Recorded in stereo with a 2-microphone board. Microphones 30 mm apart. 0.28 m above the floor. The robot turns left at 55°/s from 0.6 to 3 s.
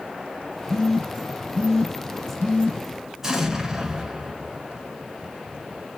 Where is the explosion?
15° right (ahead or behind), 0.6 m.